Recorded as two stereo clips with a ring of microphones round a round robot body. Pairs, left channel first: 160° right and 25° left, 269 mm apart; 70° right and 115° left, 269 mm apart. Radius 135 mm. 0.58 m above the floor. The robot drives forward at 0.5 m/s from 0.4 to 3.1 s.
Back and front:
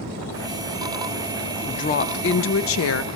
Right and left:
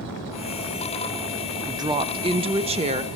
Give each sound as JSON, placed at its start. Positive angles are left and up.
{"t": 1.7, "sound": "a woman speaking", "azimuth_deg": 170, "distance_m": 0.6}